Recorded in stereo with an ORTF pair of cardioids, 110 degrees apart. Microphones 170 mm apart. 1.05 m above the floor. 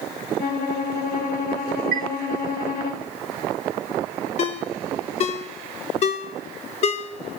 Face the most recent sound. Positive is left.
turn(degrees=40)